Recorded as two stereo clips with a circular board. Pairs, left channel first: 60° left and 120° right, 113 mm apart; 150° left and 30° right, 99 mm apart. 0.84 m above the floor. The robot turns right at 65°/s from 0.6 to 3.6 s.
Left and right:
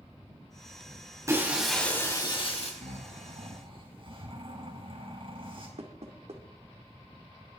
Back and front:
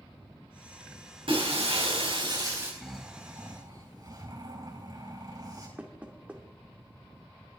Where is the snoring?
130° right, 4 m; by 5.7 s 80° right, 4 m.